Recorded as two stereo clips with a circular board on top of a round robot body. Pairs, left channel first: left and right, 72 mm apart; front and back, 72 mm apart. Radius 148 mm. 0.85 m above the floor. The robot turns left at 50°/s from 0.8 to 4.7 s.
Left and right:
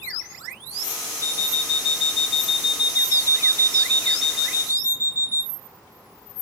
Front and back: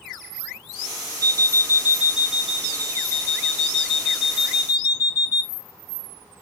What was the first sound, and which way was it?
An alarm clock, 140° left.